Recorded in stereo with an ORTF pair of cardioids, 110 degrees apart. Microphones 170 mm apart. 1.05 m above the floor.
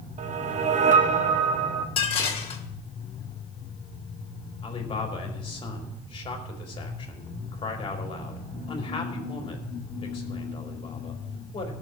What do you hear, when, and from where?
0.2 s a whoosh: 45° right, 1.1 m
2.0 s dishes clattering: 35° left, 2.5 m
4.6 s a man speaking: 30° left, 3 m